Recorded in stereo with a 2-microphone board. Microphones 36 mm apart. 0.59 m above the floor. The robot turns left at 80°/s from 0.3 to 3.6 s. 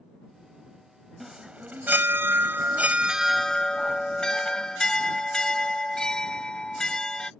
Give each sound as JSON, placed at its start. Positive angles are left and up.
{"t": 1.2, "sound": "a chime", "azimuth_deg": -5}